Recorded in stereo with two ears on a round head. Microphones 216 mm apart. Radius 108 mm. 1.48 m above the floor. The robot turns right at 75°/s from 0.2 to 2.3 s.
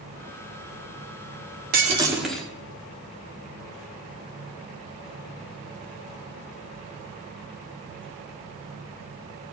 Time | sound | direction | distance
1.7 | breaking glass | 40° right | 2.5 m